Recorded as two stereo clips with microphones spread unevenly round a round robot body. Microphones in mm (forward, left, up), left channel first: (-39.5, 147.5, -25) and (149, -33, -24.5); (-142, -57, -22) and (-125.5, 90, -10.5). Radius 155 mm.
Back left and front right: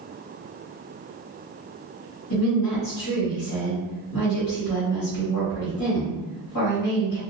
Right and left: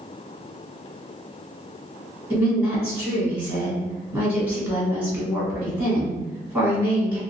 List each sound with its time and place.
2.3 s a woman speaking: 155° left, 1.7 m